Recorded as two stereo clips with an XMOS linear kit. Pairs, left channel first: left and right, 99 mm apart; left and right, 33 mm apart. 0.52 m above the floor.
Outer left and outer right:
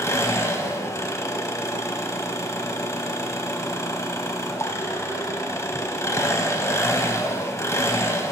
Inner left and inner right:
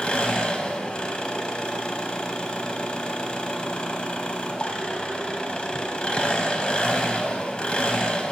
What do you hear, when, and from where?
0.0 s an engine running: 30° left (ahead or behind), 1.1 m